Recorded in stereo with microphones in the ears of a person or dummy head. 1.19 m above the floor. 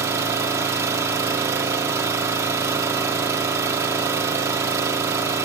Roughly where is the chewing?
No chewing in this recording.